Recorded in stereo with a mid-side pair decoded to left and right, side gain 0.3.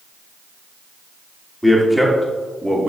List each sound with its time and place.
1.6 s a man speaking: 5° left, 2.5 m; by 2.9 s 15° right, 2 m